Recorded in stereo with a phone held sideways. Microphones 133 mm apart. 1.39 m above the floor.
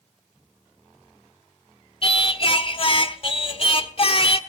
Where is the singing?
45° left (ahead or behind), 1.3 m.